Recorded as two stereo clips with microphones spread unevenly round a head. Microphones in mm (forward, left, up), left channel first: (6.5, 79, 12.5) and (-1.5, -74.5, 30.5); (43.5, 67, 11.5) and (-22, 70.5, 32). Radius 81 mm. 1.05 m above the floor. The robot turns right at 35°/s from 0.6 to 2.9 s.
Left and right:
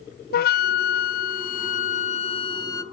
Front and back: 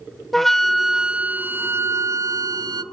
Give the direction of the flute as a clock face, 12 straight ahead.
9 o'clock.